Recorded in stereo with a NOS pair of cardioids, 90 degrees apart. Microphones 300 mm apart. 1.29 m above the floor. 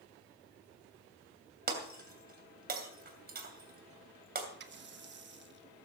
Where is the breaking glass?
35° right, 2.5 m.